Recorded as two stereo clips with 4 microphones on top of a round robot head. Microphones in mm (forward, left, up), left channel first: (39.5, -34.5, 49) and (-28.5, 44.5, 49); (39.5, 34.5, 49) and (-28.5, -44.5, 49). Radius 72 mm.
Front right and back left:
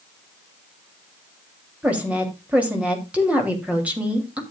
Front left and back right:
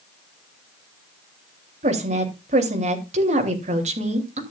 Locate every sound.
1.8 s a woman speaking: 150° right, 3 m